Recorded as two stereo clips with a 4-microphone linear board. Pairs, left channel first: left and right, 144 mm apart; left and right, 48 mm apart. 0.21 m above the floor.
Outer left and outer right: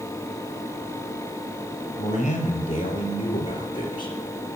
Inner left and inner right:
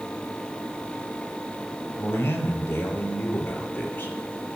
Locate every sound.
2.0 s a man speaking: 55° left (ahead or behind), 4 m; by 4.2 s 30° left (ahead or behind), 3 m